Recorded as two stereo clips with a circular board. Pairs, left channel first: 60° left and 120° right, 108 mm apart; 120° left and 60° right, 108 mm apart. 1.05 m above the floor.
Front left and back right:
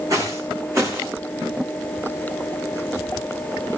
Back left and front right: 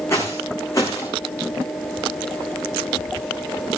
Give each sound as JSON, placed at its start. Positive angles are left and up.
{"t": 0.1, "sound": "footsteps", "azimuth_deg": -175, "distance_m": 4.0}